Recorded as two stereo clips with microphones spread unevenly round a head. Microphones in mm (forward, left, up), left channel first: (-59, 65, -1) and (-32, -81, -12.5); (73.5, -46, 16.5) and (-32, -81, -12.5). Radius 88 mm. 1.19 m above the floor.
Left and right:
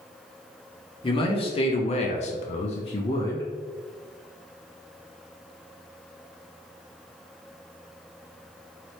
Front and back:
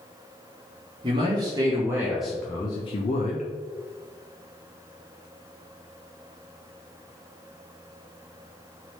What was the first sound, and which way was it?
A man speaking, 155° left.